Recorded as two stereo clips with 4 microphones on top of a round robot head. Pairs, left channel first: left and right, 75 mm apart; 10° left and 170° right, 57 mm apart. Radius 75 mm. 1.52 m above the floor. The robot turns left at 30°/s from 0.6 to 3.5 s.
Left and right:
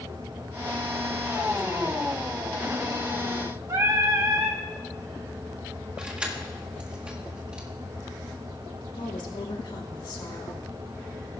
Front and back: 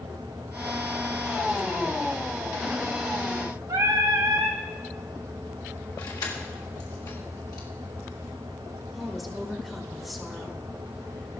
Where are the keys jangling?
15° right, 1.8 m.